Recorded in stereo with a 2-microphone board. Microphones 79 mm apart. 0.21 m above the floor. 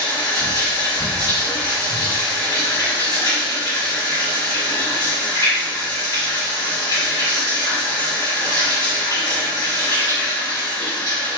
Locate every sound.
0.0 s running water: 50° left (ahead or behind), 1.6 m